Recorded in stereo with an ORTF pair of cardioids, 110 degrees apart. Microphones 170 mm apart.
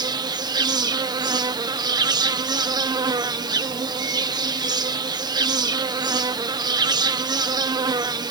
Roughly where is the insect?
Ahead right.